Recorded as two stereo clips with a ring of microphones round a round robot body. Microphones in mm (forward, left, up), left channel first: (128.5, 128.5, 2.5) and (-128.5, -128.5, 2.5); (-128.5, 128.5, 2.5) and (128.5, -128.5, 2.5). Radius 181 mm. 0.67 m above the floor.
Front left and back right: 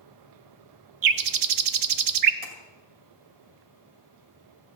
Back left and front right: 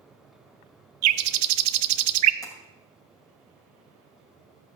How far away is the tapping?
About 2 m.